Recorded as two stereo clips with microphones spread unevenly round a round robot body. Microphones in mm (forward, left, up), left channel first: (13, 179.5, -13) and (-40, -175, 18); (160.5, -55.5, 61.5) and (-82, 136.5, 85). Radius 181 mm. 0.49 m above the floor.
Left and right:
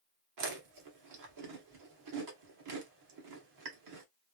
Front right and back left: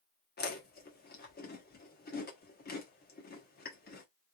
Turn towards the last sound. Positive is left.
turn(degrees=-80)